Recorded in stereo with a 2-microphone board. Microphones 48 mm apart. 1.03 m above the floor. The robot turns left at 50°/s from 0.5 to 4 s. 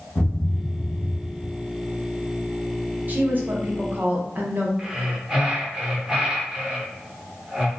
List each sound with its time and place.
0.1 s a thud: 105° left, 1.4 m; by 1.5 s 55° left, 1.4 m
3.1 s a woman speaking: 60° right, 0.7 m; by 4.7 s 105° right, 0.7 m
4.8 s breathing: 15° right (ahead or behind), 0.7 m